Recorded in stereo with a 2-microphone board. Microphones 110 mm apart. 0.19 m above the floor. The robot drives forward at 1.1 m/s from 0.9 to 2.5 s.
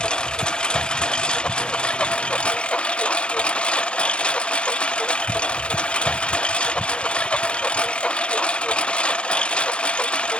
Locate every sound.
0.0 s a lawn mower: 10° left (ahead or behind)